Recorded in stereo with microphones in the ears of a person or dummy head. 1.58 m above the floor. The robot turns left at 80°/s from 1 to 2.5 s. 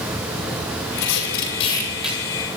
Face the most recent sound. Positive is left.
turn(degrees=-40)